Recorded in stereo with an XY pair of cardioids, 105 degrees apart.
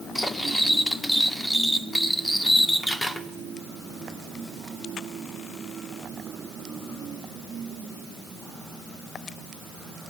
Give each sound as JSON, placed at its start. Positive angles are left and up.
{"t": 0.1, "sound": "cutlery clinking", "azimuth_deg": 10, "distance_m": 1.4}